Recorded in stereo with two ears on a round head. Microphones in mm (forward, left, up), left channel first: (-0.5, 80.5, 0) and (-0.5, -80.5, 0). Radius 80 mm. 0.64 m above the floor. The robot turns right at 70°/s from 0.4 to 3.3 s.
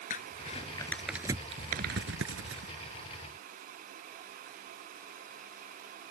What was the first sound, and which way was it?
Crumpling, 45° left (ahead or behind).